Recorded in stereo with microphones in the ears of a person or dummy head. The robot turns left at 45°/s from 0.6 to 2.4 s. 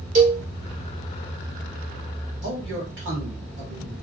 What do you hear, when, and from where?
0.1 s a cowbell: 35° right (ahead or behind), 1.4 m
2.4 s a man speaking: 60° right (ahead or behind), 1.4 m